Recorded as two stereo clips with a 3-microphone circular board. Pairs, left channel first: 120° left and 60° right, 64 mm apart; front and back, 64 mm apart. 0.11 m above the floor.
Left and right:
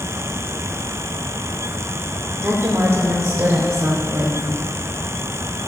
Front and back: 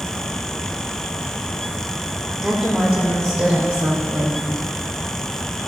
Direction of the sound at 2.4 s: 95° right.